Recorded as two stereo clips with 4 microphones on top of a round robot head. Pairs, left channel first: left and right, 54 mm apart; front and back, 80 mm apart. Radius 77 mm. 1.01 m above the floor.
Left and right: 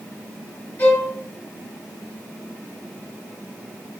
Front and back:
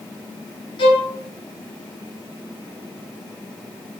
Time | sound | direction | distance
0.8 | a violin | 20° left | 2 m